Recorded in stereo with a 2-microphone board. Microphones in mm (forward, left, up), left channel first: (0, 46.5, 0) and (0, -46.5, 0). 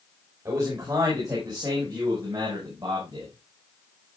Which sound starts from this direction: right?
A man speaking, at 0.5 s.